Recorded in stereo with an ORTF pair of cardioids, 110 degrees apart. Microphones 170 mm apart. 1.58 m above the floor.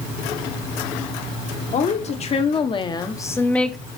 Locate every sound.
1.7 s a woman speaking: 45° left, 1.5 m; by 3.8 s straight ahead, 0.8 m